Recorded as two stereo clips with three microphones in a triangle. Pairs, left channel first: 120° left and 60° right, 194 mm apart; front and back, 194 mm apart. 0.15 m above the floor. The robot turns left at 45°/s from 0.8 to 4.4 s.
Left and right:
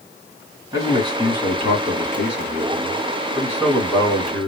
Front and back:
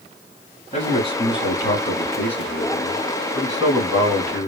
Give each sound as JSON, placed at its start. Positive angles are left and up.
{"t": 0.7, "sound": "a man speaking", "azimuth_deg": -5, "distance_m": 1.9}